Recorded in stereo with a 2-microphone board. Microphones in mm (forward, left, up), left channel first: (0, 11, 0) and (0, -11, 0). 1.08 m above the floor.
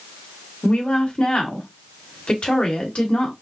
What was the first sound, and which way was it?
A woman speaking, 55° left (ahead or behind).